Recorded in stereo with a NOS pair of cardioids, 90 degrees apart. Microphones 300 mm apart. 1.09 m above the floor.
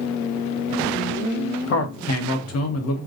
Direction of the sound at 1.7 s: 60° left.